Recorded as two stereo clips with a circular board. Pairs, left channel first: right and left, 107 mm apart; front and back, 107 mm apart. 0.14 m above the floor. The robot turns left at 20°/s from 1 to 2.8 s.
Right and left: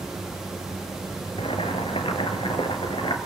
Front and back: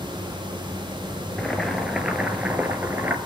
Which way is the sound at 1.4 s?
85° right.